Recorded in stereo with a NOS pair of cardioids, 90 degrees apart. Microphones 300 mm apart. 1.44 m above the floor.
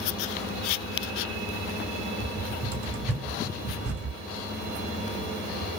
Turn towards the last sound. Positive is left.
turn(degrees=-50)